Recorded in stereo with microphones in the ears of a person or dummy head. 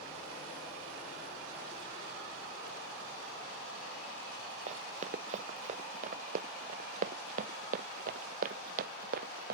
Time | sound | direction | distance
4.7 | running footsteps | 40° right (ahead or behind) | ?